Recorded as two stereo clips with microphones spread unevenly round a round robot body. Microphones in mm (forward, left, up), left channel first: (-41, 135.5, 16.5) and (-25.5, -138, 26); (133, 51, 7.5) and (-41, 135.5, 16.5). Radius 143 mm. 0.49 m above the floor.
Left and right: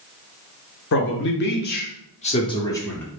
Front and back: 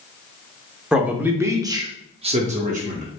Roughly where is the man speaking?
Ahead left.